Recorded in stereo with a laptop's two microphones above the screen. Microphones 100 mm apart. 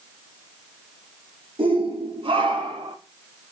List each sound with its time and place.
1.6 s a shout: 75° right (ahead or behind), 3.5 m; by 3.0 s 65° right (ahead or behind), 3.5 m